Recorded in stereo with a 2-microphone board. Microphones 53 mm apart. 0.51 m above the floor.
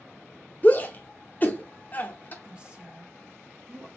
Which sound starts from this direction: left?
A shout, at 0.6 s.